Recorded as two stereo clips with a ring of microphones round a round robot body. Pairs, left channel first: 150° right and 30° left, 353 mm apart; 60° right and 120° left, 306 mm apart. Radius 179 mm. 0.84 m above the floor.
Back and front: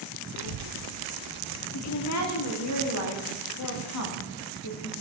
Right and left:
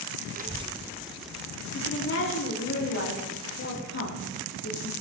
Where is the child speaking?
55° left, 0.6 m; by 1.6 s 25° left, 1.6 m.